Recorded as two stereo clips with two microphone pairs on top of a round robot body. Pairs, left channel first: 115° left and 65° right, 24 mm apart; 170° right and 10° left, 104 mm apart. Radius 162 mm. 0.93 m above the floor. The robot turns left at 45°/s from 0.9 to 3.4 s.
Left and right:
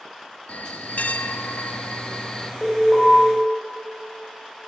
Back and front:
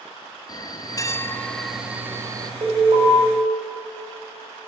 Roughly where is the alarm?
Ahead left.